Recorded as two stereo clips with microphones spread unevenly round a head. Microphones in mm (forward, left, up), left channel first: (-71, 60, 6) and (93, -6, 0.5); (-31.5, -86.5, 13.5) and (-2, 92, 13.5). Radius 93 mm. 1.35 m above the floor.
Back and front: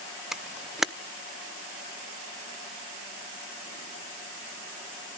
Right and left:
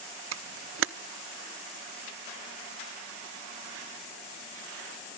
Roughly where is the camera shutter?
Ahead left.